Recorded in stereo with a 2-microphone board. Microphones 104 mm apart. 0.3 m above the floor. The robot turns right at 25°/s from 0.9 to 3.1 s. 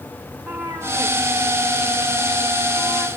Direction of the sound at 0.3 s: 10° right (ahead or behind).